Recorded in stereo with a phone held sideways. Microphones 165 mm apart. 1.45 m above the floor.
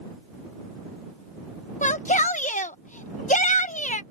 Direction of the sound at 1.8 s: 50° left (ahead or behind).